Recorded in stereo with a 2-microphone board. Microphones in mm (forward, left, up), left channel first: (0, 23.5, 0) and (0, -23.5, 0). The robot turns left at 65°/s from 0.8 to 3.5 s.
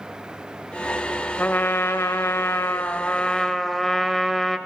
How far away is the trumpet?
About 0.7 m.